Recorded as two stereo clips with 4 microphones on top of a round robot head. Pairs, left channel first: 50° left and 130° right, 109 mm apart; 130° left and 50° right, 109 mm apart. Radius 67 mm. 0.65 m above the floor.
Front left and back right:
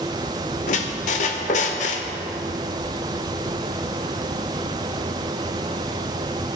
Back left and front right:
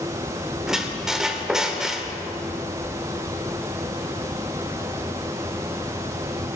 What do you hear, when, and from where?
0.7 s a squeak: 35° left, 0.7 m